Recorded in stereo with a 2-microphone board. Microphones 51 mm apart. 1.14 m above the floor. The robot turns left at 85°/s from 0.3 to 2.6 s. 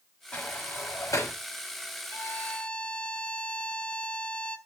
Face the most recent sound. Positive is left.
turn(degrees=25)